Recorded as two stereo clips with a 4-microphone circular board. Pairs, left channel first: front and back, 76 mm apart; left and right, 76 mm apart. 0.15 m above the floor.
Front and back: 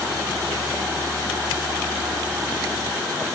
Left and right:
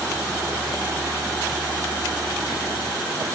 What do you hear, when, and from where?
Only background noise.